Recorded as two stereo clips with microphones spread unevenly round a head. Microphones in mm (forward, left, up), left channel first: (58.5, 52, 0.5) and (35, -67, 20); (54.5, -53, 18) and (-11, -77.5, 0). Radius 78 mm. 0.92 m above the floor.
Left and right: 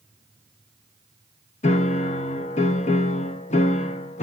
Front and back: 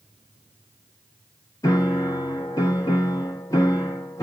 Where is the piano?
85° left, 0.8 m.